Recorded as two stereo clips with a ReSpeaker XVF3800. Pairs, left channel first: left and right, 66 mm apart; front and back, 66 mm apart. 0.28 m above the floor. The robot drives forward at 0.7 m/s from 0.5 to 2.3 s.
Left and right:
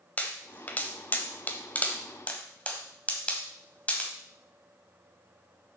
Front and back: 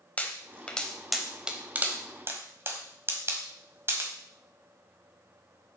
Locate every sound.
0.2 s a pop: 50° left, 1.1 m; by 4.1 s 150° left, 1.3 m